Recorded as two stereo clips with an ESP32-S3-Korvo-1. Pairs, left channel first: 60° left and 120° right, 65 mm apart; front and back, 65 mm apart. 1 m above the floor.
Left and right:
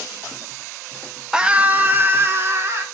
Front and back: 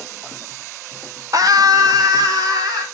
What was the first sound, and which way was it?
A scream, 160° left.